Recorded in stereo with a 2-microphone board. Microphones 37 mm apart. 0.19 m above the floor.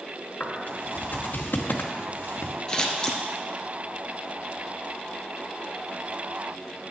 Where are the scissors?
25° left (ahead or behind), 1.4 m.